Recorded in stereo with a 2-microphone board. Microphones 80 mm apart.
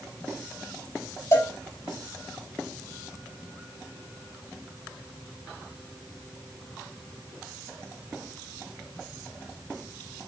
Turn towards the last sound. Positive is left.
turn(degrees=40)  # may be behind; listen again after turning